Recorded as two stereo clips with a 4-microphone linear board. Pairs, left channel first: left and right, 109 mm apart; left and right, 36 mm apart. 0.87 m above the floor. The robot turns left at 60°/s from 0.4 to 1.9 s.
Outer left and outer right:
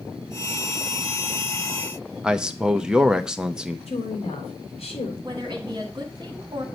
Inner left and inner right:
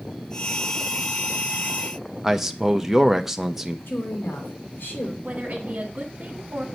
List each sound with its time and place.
2.2 s a man speaking: 5° right (ahead or behind), 0.5 m
3.9 s a woman speaking: 70° left (ahead or behind), 2.5 m
5.2 s a woman speaking: 40° right (ahead or behind), 1.9 m